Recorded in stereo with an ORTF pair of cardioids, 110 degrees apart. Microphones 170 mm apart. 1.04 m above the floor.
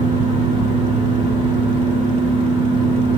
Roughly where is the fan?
Ahead right.